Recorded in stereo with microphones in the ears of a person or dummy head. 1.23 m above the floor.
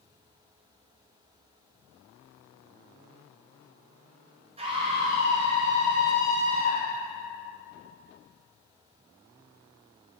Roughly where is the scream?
Right.